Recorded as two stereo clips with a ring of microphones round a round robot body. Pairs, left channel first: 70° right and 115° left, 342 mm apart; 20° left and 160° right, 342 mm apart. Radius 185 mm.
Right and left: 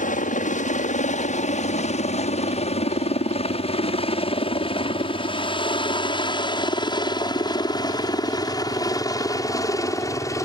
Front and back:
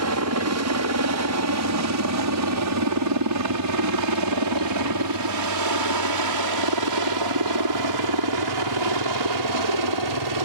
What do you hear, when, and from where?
0.0 s a helicopter: 130° right; by 10.5 s 150° right